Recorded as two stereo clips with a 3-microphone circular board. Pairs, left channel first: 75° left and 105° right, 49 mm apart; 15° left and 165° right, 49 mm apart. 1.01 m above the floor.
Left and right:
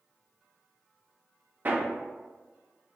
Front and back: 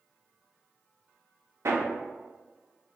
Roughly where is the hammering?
Behind right.